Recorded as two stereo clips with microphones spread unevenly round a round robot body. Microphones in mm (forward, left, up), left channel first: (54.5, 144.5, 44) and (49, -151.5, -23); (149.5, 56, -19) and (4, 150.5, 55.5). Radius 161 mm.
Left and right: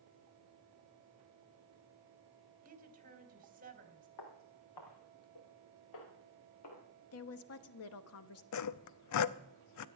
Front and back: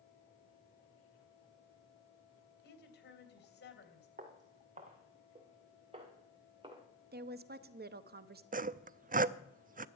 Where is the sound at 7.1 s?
115° left, 1.0 m.